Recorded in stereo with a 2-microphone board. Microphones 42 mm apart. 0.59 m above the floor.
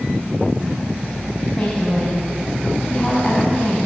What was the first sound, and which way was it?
A woman speaking, 20° left (ahead or behind).